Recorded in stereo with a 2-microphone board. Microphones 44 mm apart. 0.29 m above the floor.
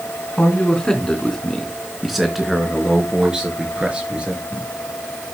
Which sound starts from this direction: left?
A man speaking, at 0.4 s.